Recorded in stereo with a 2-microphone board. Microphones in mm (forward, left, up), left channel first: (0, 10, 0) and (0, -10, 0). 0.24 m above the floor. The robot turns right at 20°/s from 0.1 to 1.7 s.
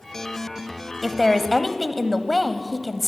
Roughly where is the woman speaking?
Centre.